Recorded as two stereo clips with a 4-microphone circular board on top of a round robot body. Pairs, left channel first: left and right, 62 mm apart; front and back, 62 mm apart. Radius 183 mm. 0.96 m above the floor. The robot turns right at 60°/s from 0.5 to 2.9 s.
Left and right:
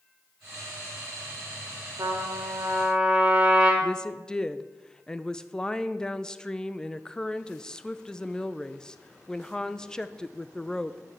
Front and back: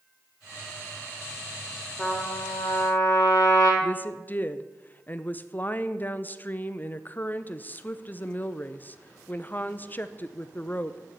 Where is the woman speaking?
25° left, 0.8 m.